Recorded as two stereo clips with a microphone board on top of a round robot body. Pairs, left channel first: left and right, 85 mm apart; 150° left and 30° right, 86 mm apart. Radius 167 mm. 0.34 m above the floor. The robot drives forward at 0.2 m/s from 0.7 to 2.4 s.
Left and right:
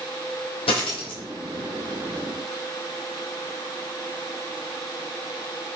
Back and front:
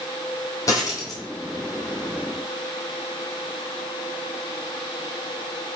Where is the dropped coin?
95° left, 0.9 m; by 1.2 s 105° left, 1.0 m.